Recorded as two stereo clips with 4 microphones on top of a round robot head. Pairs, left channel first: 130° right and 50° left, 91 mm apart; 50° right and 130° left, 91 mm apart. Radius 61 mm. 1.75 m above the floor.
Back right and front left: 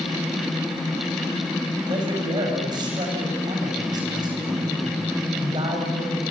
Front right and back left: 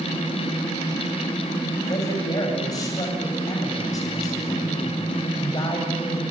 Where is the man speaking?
5° left, 8.5 m.